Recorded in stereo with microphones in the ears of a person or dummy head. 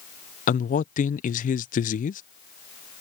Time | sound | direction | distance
0.5 | a man speaking | 35° left (ahead or behind) | ?